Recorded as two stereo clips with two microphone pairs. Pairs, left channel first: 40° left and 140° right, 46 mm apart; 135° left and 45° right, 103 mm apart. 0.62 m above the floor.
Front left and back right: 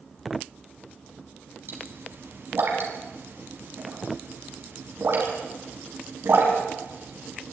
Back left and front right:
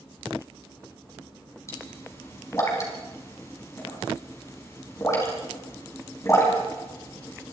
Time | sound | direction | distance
1.7 | a pop | 165° right | 5 m